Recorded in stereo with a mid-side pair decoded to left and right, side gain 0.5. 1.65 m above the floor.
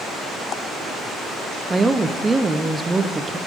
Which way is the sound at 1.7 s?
20° right.